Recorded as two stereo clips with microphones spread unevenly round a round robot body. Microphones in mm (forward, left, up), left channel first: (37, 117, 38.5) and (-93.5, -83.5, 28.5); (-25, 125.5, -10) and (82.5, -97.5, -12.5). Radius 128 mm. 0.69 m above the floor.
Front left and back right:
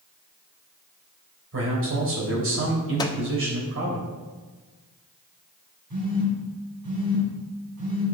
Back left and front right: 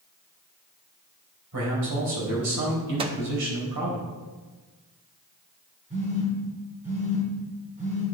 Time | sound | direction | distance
1.5 | a man speaking | 90° right | 3.5 m
3.0 | a microwave | 10° right | 0.5 m
5.9 | a phone buzzing | 130° right | 4 m